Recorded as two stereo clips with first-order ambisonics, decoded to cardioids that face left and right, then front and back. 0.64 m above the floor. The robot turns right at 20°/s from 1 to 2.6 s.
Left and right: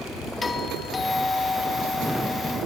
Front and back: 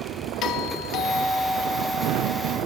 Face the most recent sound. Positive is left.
turn(degrees=55)